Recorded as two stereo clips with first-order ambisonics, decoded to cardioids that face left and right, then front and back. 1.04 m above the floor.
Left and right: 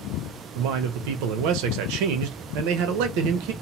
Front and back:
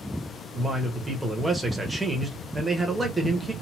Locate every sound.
0.6 s a man speaking: 95° right, 0.7 m